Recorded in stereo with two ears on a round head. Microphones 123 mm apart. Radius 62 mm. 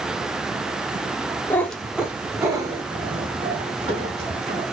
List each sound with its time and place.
1.5 s a cat meowing: 15° left (ahead or behind), 0.7 m; by 4.7 s 50° right (ahead or behind), 2 m